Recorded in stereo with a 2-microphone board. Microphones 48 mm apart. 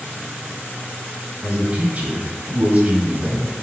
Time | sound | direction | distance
1.4 | a man speaking | 40° right (ahead or behind) | 1.3 m